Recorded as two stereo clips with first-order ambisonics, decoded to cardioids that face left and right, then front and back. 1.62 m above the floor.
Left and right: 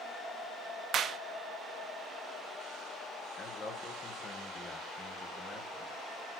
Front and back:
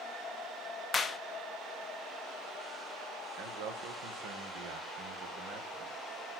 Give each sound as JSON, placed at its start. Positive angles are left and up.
{"t": 0.9, "sound": "a clap", "azimuth_deg": -60, "distance_m": 0.5}
{"t": 3.4, "sound": "a man speaking", "azimuth_deg": 165, "distance_m": 1.6}